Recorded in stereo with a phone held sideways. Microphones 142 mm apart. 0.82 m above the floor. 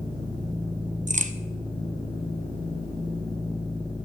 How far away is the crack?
About 0.6 m.